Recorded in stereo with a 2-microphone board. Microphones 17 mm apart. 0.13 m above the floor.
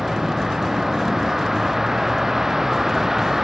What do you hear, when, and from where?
0.0 s a vehicle: 20° right (ahead or behind)